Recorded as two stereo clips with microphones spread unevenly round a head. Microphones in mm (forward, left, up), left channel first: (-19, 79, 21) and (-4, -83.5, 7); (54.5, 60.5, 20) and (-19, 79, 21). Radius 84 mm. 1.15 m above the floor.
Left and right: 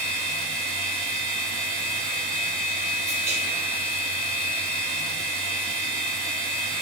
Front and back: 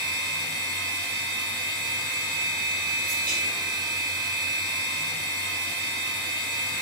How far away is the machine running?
About 1.5 m.